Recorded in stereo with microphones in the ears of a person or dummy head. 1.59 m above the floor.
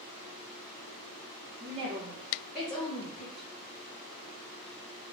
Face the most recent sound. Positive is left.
turn(degrees=60)  # may be behind; listen again after turning